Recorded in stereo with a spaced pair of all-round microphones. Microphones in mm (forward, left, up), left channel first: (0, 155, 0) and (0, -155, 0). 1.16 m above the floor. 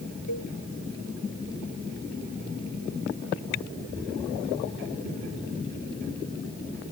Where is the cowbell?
70° left (ahead or behind).